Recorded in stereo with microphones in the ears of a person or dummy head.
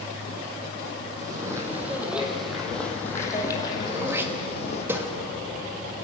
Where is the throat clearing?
15° right (ahead or behind), 2 m.